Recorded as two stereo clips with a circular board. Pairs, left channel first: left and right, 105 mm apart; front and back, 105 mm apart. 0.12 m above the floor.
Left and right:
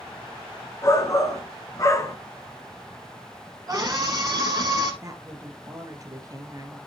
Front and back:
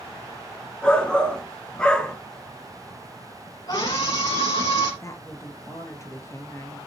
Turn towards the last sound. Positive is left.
turn(degrees=-50)